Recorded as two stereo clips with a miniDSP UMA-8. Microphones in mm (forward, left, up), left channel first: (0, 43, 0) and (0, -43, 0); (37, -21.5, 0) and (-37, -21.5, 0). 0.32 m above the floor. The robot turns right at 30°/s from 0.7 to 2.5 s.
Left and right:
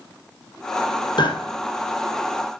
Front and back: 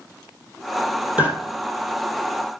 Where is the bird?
110° left, 2.5 m.